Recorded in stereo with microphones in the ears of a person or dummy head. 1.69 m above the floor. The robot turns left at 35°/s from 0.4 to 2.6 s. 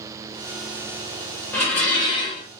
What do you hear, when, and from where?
1.5 s dishes clattering: 10° left (ahead or behind), 1.0 m; by 2.5 s 20° left (ahead or behind), 1.0 m